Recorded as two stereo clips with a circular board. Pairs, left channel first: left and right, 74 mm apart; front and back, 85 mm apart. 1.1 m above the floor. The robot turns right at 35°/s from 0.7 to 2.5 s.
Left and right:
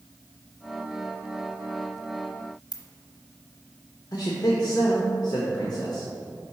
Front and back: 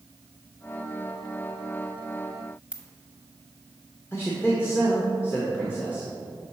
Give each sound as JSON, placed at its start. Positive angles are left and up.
{"t": 2.7, "sound": "a ringtone", "azimuth_deg": 100, "distance_m": 0.7}
{"t": 4.1, "sound": "a man speaking", "azimuth_deg": 60, "distance_m": 0.8}